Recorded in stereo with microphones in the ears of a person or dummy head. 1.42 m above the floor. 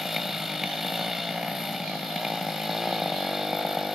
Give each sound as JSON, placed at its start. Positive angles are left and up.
{"t": 0.0, "sound": "a motorcycle", "side_deg": 0}